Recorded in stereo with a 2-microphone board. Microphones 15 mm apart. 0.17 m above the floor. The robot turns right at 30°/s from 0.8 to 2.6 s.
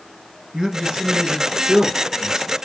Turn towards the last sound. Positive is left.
turn(degrees=-35)